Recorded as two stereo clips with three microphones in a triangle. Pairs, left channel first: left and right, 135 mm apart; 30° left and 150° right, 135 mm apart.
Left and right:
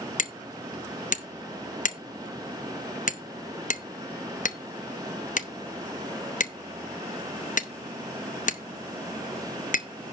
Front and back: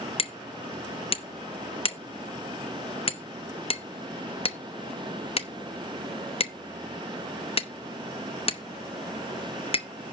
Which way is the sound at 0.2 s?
75° left.